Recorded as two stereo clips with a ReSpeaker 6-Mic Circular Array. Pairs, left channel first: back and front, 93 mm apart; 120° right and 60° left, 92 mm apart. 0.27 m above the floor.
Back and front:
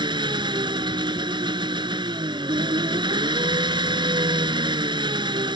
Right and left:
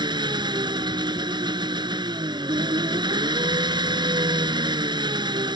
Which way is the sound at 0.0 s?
30° left.